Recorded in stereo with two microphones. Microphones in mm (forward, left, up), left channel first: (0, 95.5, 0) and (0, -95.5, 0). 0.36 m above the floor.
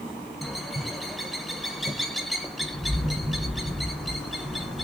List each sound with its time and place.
0.4 s a bird: centre (ahead or behind), 0.6 m